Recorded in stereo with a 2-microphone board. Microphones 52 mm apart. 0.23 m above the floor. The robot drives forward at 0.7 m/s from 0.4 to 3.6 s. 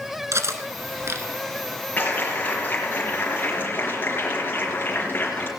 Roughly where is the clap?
Left.